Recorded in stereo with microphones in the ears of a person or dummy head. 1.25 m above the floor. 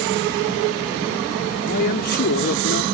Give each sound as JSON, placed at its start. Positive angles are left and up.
{"t": 1.7, "sound": "a man speaking", "side_deg": 55}